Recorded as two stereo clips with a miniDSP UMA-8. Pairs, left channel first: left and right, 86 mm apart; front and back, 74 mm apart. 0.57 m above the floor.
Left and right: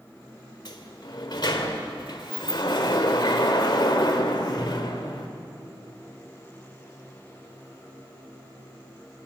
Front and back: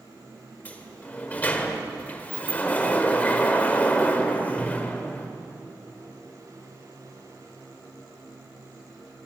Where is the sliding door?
65° left, 1.7 m.